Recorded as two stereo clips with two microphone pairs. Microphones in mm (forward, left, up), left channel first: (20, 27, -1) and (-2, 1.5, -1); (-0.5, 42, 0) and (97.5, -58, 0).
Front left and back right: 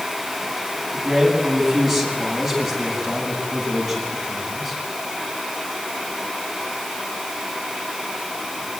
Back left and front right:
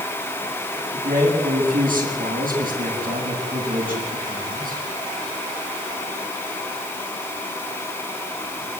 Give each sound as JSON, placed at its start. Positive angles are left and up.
{"t": 0.9, "sound": "a man speaking", "azimuth_deg": -45, "distance_m": 8.5}